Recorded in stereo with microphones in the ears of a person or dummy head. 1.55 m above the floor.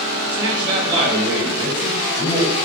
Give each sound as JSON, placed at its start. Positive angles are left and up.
{"t": 0.3, "sound": "a man speaking", "side_deg": -25, "distance_m": 1.9}